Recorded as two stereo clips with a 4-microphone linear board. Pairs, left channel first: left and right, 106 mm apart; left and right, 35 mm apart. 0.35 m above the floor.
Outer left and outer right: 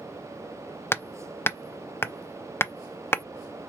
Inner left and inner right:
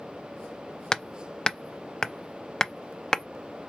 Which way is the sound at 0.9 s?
20° left (ahead or behind).